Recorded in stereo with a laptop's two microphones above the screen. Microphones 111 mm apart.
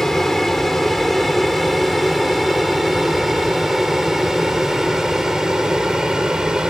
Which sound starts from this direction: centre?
An aircraft, at 0.0 s.